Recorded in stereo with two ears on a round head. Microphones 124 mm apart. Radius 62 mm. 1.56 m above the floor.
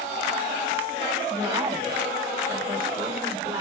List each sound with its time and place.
1.3 s a woman speaking: 40° right (ahead or behind), 7 m